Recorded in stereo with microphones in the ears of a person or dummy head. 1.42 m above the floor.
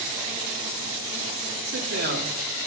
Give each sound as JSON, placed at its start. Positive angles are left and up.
{"t": 1.7, "sound": "a man speaking", "side_deg": -50, "distance_m": 2.5}